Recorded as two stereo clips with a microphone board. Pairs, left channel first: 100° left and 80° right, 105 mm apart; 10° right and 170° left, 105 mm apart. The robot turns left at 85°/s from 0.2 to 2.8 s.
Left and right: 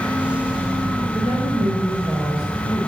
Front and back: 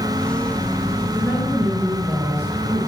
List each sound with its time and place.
1.1 s a woman speaking: 60° right, 5 m; by 2.9 s 160° left, 5 m